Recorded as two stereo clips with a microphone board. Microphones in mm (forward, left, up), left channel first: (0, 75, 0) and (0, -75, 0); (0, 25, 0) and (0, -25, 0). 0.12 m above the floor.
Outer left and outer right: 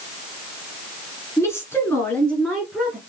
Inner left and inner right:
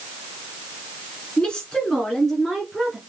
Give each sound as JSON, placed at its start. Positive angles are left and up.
{"t": 1.4, "sound": "a woman speaking", "side_deg": 20, "distance_m": 1.7}